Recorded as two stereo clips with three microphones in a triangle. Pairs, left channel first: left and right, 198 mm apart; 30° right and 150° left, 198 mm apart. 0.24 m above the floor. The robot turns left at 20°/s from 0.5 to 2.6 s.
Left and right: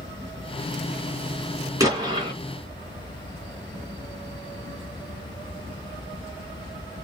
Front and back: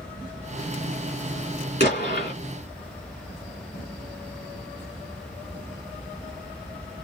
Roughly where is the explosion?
Ahead.